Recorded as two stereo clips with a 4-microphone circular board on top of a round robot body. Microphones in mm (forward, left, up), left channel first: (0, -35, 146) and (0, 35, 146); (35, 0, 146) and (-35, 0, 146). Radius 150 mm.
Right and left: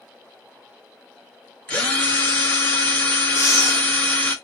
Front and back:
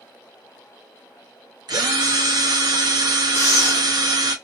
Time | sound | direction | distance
1.7 | a drill | 165° right | 1.1 m
3.4 | breathing | 45° right | 0.7 m